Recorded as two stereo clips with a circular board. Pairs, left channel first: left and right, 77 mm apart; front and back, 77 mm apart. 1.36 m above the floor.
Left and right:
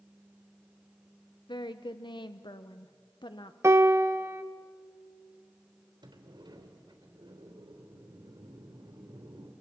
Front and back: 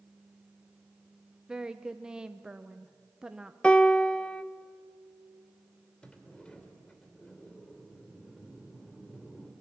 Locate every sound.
1.5 s a woman speaking: 100° left, 0.7 m
3.6 s a piano: 70° right, 0.7 m
6.0 s a sliding door: 80° right, 3 m